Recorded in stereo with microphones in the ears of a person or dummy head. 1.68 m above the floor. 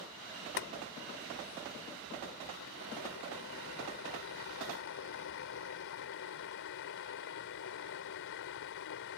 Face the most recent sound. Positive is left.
turn(degrees=60)  # may be behind; listen again after turning